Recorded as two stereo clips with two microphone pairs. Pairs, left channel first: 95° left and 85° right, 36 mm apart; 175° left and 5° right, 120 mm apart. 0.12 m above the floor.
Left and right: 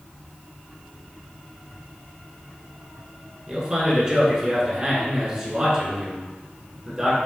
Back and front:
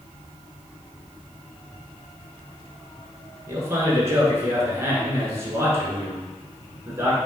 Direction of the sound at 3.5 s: 45° right.